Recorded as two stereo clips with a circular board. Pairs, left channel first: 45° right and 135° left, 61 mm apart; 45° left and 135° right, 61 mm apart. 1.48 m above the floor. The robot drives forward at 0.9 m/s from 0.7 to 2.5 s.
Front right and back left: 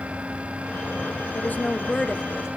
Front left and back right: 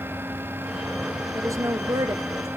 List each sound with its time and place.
1.4 s a woman speaking: 95° right, 0.8 m; by 2.5 s 145° right, 1.4 m